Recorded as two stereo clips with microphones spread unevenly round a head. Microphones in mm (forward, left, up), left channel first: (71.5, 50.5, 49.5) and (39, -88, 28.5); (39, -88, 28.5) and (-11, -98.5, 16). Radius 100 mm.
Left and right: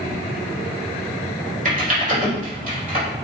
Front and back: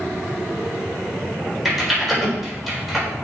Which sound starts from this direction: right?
Typing on a keyboard, at 1.6 s.